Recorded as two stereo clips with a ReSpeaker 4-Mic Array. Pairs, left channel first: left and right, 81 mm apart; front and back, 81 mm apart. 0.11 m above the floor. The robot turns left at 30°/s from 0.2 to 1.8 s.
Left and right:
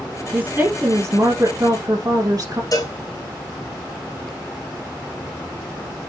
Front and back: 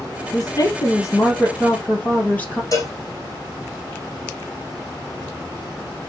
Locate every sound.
0.3 s a woman speaking: 15° right, 3 m; by 2.6 s 60° right, 3 m
2.7 s a cowbell: 45° left, 4 m